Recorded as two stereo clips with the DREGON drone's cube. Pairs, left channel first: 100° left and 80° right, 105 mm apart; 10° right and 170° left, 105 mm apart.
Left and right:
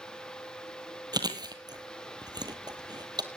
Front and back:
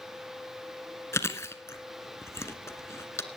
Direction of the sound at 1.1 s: 65° right.